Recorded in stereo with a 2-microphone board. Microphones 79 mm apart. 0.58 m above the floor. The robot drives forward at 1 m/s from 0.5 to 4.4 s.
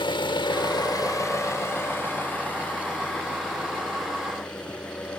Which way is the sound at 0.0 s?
70° left (ahead or behind).